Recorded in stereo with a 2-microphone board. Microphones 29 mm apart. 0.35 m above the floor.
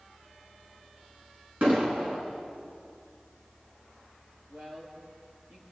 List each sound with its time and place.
1.6 s an explosion: 60° right (ahead or behind), 4.5 m
4.5 s a woman speaking: 45° right (ahead or behind), 9 m